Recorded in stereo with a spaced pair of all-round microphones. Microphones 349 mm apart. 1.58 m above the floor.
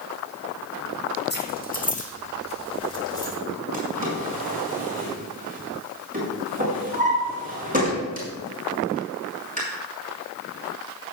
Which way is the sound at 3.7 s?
25° right (ahead or behind).